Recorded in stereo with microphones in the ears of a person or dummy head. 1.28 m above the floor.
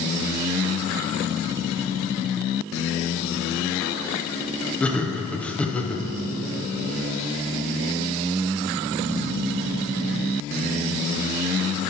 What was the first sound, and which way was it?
Laughter, 10° left (ahead or behind).